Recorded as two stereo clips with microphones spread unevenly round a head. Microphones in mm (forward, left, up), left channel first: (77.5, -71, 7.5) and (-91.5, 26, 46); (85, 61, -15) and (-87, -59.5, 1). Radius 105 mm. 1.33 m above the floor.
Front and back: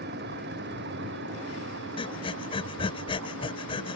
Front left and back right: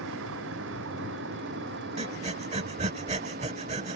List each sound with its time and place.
0.0 s a vehicle: 175° right; by 4.0 s 165° left
2.0 s breathing: 100° right